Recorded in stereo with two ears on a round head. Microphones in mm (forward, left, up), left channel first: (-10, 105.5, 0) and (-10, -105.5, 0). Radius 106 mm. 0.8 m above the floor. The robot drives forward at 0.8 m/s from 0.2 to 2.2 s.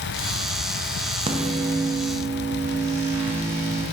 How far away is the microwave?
About 0.6 m.